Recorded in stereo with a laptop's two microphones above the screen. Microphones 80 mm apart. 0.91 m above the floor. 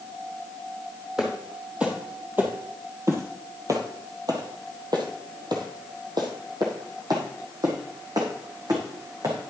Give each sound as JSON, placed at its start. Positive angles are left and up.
{"t": 1.2, "sound": "footsteps", "side_deg": -5, "distance_m": 1.8}